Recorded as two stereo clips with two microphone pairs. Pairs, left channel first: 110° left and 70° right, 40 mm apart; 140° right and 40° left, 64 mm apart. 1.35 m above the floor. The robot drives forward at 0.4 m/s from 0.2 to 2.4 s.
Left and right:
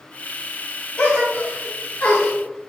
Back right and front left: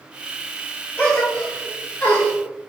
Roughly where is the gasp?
Behind left.